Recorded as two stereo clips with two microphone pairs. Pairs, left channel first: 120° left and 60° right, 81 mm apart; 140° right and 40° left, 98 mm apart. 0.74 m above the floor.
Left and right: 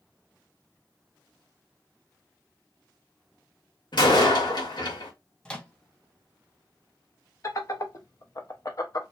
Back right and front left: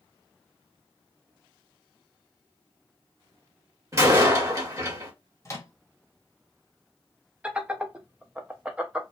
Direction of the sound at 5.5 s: 175° right.